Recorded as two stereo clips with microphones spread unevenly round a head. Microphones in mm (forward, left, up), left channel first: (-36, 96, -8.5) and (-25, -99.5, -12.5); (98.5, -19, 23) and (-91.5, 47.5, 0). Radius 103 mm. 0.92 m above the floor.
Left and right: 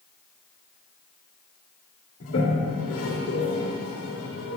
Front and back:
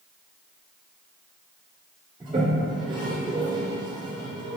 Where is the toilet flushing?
95° left, 2 m.